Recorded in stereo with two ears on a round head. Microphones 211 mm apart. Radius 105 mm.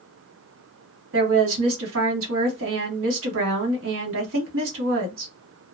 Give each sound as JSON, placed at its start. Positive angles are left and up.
{"t": 1.1, "sound": "a woman speaking", "side_deg": -60, "distance_m": 1.3}